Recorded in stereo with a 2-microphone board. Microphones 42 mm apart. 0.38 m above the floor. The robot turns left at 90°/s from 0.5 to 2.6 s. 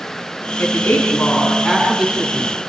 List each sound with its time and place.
0.6 s a woman speaking: 105° left, 4 m; by 2.5 s 70° right, 4 m